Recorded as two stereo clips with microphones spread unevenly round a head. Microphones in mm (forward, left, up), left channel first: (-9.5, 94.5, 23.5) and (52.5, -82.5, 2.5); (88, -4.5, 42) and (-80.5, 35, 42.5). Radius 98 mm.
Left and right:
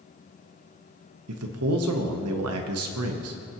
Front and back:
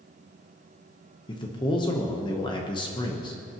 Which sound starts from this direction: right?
A man speaking, at 1.3 s.